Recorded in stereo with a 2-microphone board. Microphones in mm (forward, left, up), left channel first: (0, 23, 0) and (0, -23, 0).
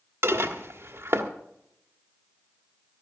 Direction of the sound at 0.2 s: 70° right (ahead or behind).